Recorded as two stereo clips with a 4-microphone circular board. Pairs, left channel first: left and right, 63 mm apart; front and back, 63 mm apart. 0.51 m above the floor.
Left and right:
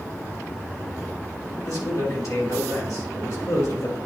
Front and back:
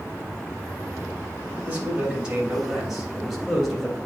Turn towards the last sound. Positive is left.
turn(degrees=85)